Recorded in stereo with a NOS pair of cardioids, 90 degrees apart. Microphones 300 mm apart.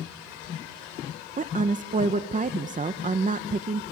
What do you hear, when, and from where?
1.4 s a woman speaking: 25° right, 1.1 m